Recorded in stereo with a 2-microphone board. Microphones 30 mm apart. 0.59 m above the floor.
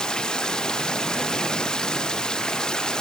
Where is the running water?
25° left (ahead or behind).